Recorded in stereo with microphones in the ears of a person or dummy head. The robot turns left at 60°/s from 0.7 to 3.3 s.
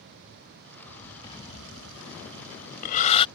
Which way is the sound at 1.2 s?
25° left (ahead or behind).